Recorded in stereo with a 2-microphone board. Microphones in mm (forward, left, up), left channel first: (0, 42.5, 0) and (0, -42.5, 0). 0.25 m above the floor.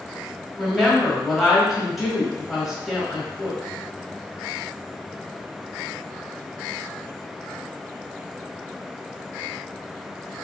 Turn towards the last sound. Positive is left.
turn(degrees=0)  # may be behind; listen again after turning